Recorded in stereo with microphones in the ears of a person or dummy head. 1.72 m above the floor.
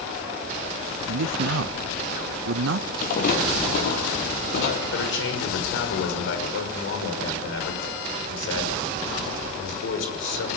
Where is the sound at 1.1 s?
75° right (ahead or behind), 0.5 m.